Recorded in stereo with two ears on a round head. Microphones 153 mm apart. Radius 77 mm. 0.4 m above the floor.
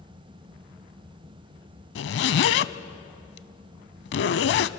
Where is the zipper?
70° left (ahead or behind), 0.5 m.